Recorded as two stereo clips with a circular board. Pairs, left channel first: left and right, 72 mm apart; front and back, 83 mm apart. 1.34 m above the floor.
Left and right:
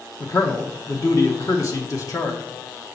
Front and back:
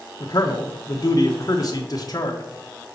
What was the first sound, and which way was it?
A man speaking, 45° left.